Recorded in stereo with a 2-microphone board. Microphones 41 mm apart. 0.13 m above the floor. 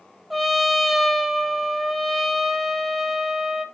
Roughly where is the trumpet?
Centre.